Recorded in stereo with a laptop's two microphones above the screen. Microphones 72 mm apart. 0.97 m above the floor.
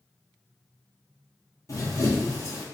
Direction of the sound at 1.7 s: 45° left (ahead or behind).